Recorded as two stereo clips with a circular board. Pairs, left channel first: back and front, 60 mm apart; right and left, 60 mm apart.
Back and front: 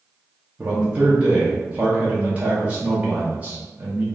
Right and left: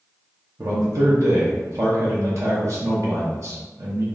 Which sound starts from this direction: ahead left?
A man speaking, at 0.6 s.